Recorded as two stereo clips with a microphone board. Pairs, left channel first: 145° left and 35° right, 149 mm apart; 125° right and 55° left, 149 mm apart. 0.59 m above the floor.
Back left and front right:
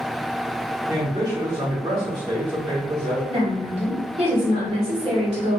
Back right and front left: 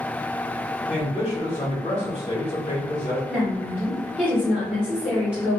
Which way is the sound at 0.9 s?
90° right.